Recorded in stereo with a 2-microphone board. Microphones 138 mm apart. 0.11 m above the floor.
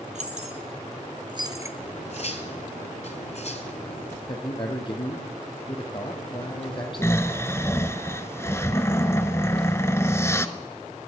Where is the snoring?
20° left (ahead or behind), 0.7 m.